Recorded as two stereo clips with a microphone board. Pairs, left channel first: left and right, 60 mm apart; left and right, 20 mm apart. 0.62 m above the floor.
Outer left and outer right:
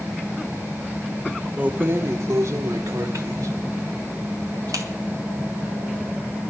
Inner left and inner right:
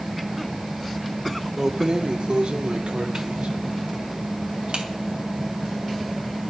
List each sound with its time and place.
1.6 s keys jangling: 25° right (ahead or behind), 0.5 m; by 4.9 s 70° right (ahead or behind), 2.5 m